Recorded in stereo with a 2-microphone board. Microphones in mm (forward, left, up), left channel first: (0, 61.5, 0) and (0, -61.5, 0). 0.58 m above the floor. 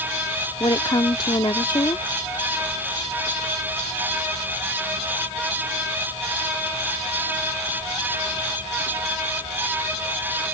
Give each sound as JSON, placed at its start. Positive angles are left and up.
{"t": 0.6, "sound": "a woman speaking", "side_deg": 40}